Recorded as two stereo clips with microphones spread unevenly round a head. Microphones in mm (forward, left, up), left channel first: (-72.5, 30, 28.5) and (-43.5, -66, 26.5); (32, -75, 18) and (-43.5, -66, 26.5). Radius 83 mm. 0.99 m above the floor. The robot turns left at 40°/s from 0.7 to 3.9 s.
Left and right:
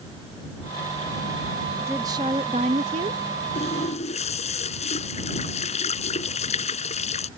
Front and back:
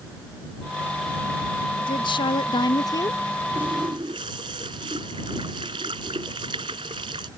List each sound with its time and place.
1.8 s a woman speaking: 5° left; by 3.2 s 55° right
3.5 s a running tap: 125° left; by 7.3 s 115° left